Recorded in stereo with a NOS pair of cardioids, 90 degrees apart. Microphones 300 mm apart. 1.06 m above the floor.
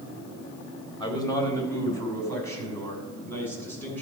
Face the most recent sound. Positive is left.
turn(degrees=5)